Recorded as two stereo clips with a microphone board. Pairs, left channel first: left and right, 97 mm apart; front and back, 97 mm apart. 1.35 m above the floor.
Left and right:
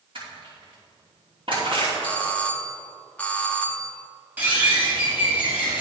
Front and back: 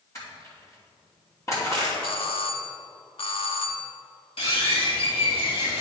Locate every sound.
0.1 s crushing: 60° right, 2.5 m
2.0 s a doorbell: 15° left, 0.7 m
4.4 s a bird: 15° right, 2.5 m